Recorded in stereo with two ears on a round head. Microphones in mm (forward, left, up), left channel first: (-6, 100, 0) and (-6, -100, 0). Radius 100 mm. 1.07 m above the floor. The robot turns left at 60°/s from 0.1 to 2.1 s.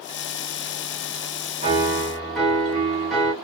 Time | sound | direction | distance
1.6 | a piano | 30° right (ahead or behind) | 1.1 m